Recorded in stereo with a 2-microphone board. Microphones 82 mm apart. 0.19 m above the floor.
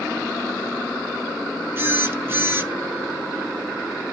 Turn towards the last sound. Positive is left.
turn(degrees=-30)  # may be behind; listen again after turning